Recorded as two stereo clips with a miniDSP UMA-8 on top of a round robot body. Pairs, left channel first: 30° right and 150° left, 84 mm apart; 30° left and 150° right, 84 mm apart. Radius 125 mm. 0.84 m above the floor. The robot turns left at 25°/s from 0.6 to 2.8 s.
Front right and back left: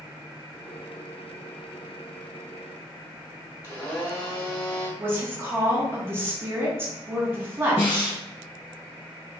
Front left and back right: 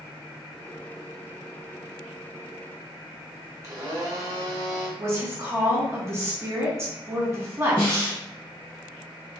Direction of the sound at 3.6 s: 95° right.